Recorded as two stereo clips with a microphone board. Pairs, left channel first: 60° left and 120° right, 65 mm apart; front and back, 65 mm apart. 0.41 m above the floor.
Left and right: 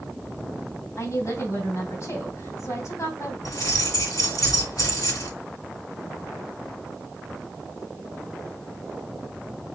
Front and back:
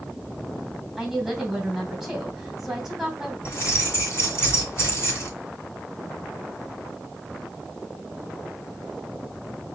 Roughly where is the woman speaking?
Left.